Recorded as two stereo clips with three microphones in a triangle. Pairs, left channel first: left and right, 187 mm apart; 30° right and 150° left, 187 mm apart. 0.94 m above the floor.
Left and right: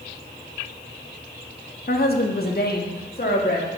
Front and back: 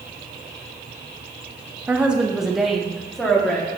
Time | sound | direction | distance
1.9 | a woman speaking | 70° left | 0.9 m